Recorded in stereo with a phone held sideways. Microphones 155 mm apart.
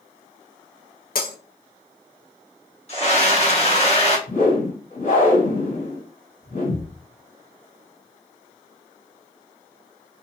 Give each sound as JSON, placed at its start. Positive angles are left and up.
{"t": 1.1, "sound": "breaking glass", "side_deg": 70, "distance_m": 0.7}
{"t": 2.9, "sound": "a scream", "side_deg": 45, "distance_m": 1.2}
{"t": 4.3, "sound": "a whoosh", "side_deg": 50, "distance_m": 1.5}